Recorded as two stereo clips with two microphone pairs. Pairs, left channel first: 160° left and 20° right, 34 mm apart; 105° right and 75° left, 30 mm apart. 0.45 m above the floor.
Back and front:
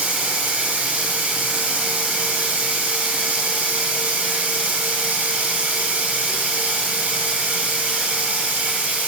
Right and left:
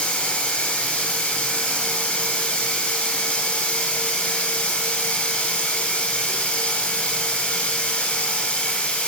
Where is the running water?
55° right, 2 m.